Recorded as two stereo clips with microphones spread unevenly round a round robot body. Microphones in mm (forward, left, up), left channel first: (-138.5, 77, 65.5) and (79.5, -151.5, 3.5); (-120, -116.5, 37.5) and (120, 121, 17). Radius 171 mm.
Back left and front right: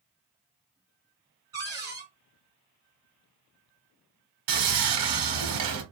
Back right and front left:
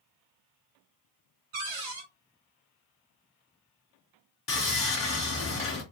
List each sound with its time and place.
1.5 s a cupboard door: 35° left, 1.5 m
4.5 s sawing: 70° right, 1.1 m